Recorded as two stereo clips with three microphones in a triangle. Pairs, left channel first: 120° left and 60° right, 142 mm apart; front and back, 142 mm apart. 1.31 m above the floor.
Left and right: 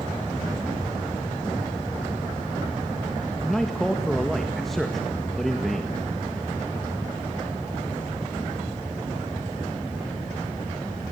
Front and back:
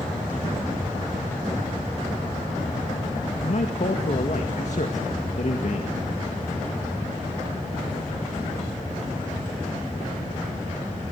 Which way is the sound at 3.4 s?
30° left.